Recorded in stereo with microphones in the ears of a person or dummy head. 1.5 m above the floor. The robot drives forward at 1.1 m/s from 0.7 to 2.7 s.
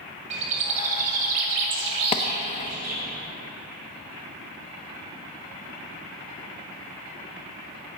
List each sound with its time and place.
0.3 s a bird: 40° right (ahead or behind), 2.5 m; by 3.0 s 50° right (ahead or behind), 2.0 m
2.1 s a clap: 30° left (ahead or behind), 0.8 m